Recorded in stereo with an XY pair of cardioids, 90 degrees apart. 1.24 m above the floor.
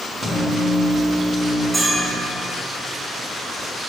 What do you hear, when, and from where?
0.2 s a microwave: 5° right, 1.3 m
1.7 s a bell: 20° right, 1.6 m